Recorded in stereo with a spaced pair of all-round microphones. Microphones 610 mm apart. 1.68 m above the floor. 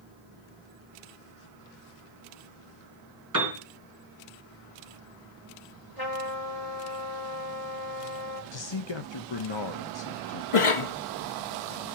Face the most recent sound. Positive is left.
turn(degrees=50)  # may be behind; listen again after turning